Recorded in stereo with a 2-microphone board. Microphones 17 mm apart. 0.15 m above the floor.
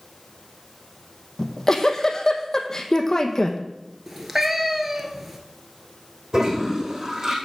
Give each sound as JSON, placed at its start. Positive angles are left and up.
{"t": 1.4, "sound": "a giggle", "side_deg": 35, "distance_m": 1.0}
{"t": 4.1, "sound": "a cat meowing", "side_deg": -15, "distance_m": 1.1}
{"t": 6.3, "sound": "a toilet flushing", "side_deg": -45, "distance_m": 2.5}